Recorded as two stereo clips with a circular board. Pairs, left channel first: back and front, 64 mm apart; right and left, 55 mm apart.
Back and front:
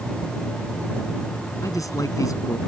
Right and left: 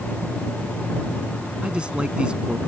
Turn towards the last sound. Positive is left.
turn(degrees=160)